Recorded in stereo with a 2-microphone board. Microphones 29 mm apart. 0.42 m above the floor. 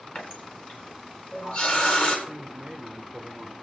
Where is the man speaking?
20° right (ahead or behind), 1.3 m.